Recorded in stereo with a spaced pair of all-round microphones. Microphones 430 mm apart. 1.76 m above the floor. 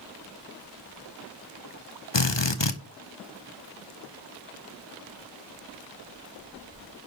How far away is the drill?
About 1.2 m.